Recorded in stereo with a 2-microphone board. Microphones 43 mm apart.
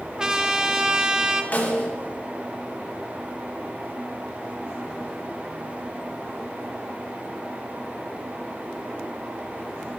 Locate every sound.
0.2 s a trumpet: 15° right (ahead or behind), 0.9 m
1.5 s a snare drum: 45° left (ahead or behind), 2.5 m